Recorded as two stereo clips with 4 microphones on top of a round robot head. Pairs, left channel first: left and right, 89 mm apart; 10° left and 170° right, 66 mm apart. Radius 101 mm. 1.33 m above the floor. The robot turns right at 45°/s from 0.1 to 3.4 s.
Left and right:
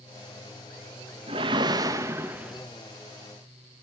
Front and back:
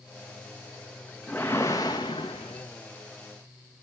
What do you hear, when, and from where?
1.3 s a whoosh: 70° right, 0.7 m; by 2.7 s 10° right, 0.7 m